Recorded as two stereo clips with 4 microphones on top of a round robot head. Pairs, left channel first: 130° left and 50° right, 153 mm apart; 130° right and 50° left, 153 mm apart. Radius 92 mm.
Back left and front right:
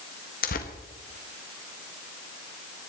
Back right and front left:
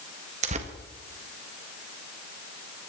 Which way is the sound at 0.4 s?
95° left.